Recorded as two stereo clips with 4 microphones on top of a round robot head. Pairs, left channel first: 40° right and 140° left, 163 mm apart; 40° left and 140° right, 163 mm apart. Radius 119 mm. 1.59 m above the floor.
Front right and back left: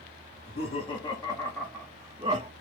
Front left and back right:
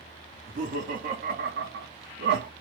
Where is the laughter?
90° right, 1.3 m; by 2.5 s 165° right, 0.6 m.